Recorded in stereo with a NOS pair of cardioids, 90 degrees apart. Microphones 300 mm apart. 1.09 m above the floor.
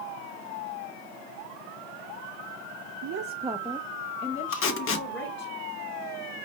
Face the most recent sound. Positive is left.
turn(degrees=50)